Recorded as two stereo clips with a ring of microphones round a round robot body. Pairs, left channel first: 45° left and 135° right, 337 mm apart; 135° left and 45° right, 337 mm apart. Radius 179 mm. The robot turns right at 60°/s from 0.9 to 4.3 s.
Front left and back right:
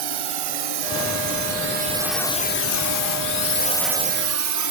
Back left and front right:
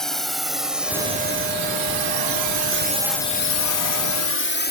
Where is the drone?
135° right; by 4.7 s 165° right.